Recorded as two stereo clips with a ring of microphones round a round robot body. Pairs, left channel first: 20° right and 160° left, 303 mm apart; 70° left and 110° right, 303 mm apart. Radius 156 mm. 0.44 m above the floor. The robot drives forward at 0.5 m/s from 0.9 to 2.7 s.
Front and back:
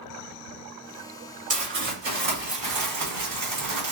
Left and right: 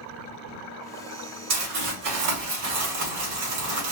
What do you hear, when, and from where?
1.5 s crumpling: 140° right, 2.5 m; by 3.9 s 150° right, 3 m